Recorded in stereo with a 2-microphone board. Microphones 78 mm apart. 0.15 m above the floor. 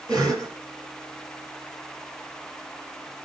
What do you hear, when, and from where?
0.1 s a cough: 55° right (ahead or behind), 2.5 m